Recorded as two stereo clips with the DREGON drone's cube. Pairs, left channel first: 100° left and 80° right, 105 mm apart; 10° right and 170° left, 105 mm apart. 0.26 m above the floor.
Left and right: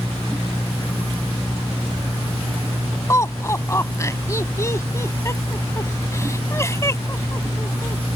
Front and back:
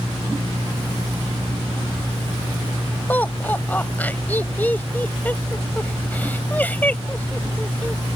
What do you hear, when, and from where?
3.1 s laughter: 55° left